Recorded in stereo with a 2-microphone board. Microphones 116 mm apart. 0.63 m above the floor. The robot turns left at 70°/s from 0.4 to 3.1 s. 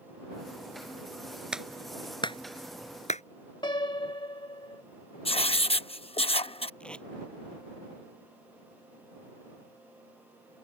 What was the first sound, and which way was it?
A clap, 10° right (ahead or behind).